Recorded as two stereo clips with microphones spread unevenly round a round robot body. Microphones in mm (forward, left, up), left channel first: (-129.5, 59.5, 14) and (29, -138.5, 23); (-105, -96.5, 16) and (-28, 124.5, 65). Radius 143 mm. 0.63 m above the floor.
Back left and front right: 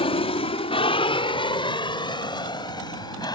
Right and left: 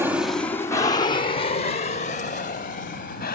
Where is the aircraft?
165° left; by 3.4 s 155° right.